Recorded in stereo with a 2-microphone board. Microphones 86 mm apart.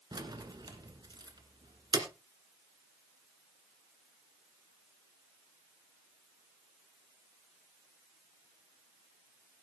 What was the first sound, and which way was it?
Keys jangling, 55° right (ahead or behind).